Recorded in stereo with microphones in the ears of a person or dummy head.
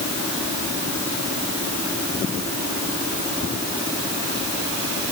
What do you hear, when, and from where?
Only background noise.